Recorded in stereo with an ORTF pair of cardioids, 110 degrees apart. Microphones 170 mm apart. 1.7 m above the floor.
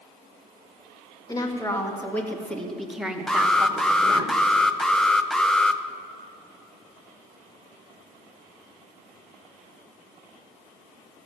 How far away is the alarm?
About 0.6 m.